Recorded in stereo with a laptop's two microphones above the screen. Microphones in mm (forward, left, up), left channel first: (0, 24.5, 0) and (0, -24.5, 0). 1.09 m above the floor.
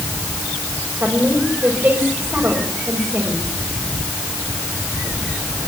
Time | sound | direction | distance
1.0 | a woman speaking | 35° right (ahead or behind) | 5 m